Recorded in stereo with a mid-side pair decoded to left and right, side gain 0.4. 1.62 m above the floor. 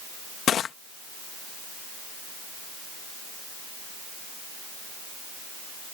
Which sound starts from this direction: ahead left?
Crushing, at 0.5 s.